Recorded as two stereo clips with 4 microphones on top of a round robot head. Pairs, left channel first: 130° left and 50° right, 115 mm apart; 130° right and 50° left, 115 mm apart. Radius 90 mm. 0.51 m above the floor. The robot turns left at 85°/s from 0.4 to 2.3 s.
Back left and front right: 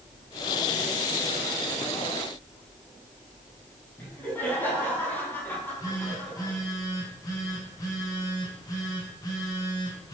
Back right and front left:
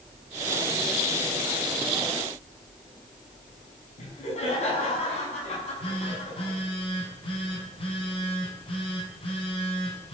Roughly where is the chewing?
No chewing in this recording.